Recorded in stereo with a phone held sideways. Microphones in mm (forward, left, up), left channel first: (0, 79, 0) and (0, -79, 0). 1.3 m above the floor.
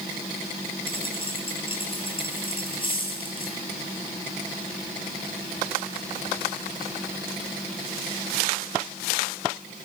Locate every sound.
0.9 s a dropped coin: 30° left (ahead or behind), 9 m